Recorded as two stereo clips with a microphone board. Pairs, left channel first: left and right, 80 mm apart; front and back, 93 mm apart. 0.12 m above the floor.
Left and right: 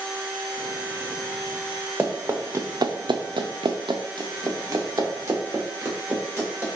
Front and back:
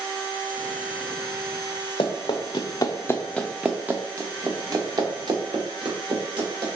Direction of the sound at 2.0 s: 20° right.